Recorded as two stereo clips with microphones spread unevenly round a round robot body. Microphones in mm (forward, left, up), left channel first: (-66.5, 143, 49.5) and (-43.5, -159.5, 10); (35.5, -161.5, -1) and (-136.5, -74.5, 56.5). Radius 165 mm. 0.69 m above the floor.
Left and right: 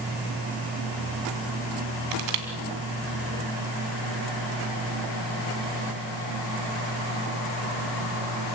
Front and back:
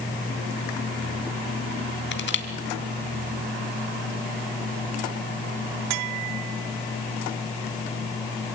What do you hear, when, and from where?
2.1 s crushing: 55° right, 2.5 m